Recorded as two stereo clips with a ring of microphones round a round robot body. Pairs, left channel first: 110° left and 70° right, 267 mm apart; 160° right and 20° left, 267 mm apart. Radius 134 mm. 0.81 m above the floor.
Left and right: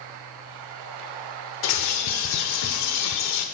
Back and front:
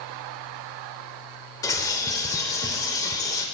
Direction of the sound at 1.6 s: 125° left.